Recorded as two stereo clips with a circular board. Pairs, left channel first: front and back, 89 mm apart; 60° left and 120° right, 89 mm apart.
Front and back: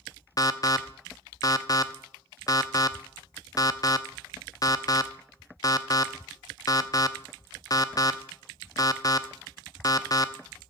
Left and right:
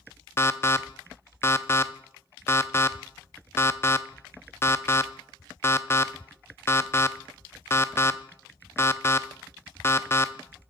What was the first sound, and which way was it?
An alarm, 10° left.